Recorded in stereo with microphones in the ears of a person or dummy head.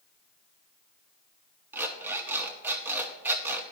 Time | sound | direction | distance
1.7 | an alarm clock | 10° right (ahead or behind) | 0.8 m